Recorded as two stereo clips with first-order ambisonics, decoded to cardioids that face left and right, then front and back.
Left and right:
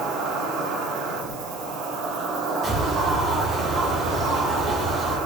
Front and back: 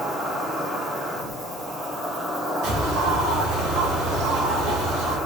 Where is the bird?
160° right, 4 m.